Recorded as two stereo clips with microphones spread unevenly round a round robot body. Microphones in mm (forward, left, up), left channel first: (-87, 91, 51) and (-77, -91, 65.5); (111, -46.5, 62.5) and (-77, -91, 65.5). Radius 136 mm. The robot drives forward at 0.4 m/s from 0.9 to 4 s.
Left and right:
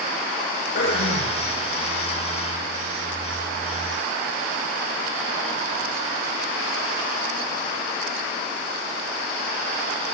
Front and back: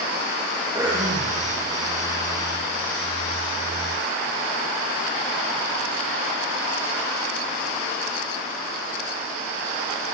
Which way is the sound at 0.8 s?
120° left.